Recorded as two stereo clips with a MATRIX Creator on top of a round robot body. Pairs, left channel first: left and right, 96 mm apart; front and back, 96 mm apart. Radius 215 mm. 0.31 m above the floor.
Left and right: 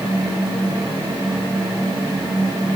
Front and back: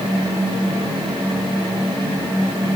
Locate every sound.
Only background noise.